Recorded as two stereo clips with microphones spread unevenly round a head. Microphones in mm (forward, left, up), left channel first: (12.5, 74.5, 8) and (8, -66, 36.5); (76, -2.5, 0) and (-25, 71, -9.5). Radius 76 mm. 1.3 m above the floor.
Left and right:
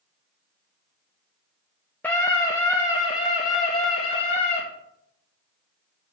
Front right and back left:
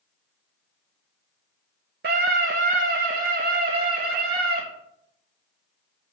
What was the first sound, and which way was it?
A scream, 170° left.